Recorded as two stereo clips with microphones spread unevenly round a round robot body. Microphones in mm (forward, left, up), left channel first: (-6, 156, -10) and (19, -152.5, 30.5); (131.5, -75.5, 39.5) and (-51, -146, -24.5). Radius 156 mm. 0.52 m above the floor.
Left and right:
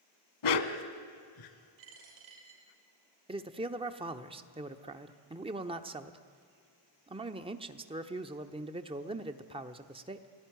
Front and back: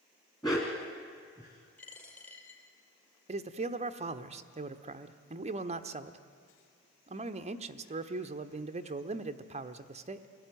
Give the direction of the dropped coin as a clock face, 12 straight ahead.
2 o'clock.